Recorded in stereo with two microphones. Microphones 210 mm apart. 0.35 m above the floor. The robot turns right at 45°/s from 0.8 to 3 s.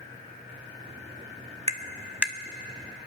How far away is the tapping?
About 0.6 m.